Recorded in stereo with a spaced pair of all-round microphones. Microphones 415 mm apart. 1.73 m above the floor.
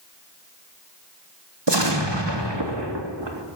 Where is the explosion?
80° right, 3 m.